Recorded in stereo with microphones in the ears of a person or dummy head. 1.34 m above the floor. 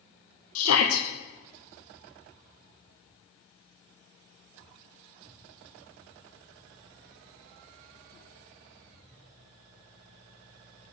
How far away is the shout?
About 1.1 m.